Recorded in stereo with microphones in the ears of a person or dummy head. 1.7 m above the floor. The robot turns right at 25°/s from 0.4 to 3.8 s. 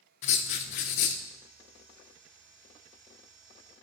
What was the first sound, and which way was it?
Writing, 45° left (ahead or behind).